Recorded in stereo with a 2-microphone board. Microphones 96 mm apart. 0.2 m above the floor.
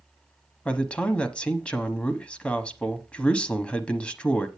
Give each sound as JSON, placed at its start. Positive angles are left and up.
{"t": 0.7, "sound": "a man speaking", "side_deg": 10, "distance_m": 1.0}